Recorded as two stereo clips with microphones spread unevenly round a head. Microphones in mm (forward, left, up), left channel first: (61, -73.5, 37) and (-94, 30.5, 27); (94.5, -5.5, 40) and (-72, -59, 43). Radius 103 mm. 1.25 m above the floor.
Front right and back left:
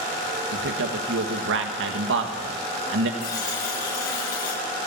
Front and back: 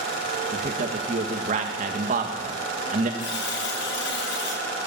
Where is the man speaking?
150° left, 1.8 m.